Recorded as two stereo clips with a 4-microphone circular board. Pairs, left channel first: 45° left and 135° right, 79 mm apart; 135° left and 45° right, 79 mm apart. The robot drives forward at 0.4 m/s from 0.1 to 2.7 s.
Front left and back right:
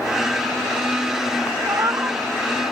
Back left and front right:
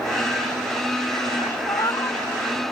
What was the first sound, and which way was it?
A cat meowing, 175° left.